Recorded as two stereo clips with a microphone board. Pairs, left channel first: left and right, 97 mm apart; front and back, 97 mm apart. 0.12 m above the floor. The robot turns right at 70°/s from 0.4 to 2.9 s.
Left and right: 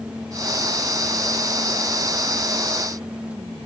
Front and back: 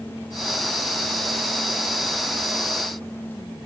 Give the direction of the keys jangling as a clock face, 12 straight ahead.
I don't hear keys jangling.